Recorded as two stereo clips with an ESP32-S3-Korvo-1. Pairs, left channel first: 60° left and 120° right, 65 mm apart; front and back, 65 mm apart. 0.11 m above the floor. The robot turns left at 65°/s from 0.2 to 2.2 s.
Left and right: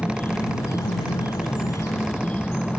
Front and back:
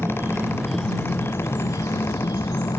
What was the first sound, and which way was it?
An insect, 120° left.